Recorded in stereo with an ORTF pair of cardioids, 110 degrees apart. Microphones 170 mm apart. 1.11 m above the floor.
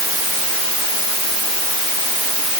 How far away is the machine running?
No machine running in this recording.